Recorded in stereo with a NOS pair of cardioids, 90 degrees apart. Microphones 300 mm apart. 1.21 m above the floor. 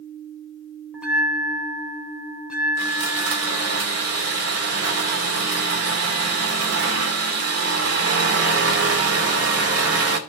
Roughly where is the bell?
Ahead.